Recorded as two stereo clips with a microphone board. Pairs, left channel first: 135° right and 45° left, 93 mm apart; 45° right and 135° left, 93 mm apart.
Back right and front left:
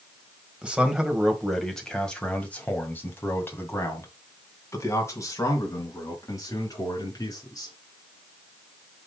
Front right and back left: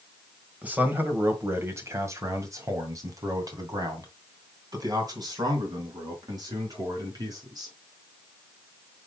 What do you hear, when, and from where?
0.6 s a man speaking: 100° left, 1.6 m; by 7.8 s 175° left, 4 m